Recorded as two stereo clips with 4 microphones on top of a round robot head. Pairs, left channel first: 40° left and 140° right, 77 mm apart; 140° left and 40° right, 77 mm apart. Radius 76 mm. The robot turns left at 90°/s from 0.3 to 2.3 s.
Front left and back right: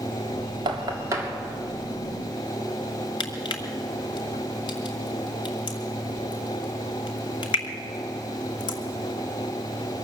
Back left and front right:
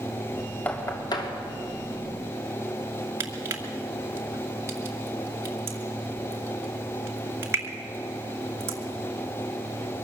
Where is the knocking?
150° right, 2.5 m; by 1.3 s 150° left, 2.5 m.